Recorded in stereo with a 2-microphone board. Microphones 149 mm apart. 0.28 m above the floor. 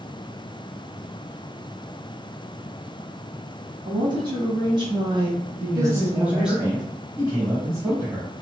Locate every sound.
3.9 s a woman speaking: 30° right (ahead or behind), 1.9 m; by 6.6 s 5° right (ahead or behind), 1.3 m
5.6 s a man speaking: 20° right (ahead or behind), 1.4 m